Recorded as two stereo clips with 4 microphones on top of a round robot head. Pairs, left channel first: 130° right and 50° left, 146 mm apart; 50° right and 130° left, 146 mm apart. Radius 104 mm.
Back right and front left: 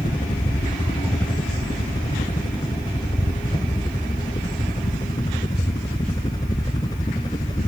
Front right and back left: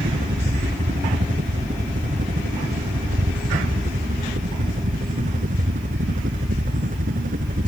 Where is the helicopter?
170° left; by 7.7 s 165° left.